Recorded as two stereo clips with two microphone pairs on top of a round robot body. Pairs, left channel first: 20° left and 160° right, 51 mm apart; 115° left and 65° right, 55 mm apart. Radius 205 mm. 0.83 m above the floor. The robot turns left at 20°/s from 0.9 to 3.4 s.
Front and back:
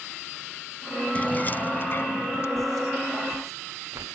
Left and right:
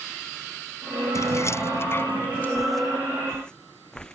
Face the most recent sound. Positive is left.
turn(degrees=-165)